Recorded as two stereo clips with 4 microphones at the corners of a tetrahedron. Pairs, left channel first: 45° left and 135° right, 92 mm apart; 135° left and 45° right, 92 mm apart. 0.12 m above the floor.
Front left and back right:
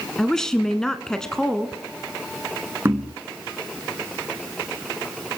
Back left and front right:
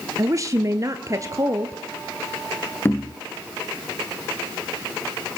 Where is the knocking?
Straight behind, 1.1 m.